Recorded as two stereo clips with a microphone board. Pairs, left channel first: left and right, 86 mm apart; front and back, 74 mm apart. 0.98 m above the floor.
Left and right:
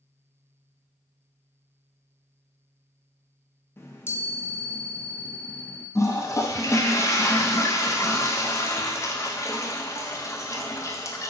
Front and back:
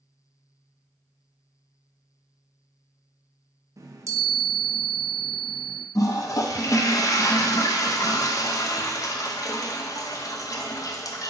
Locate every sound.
3.8 s a chime: 145° left, 0.6 m
6.0 s a toilet flushing: 35° left, 0.5 m